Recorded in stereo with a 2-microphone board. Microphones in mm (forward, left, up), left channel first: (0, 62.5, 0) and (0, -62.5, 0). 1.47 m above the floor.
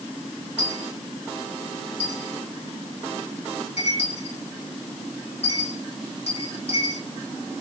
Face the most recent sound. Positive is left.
turn(degrees=75)  # may be behind; listen again after turning